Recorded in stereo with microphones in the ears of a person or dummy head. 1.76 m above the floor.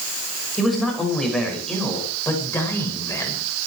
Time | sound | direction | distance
0.6 | a man speaking | centre (ahead or behind) | 7 m